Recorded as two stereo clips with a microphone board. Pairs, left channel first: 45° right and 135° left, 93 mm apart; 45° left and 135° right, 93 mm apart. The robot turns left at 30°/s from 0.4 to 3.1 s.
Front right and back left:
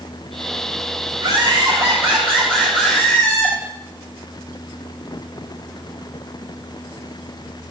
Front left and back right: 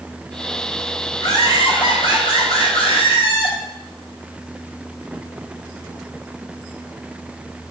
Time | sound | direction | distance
1.2 | laughter | 95° left | 5 m